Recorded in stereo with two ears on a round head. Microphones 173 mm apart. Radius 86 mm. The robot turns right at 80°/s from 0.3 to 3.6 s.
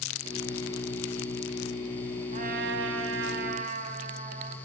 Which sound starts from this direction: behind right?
A trumpet, at 2.3 s.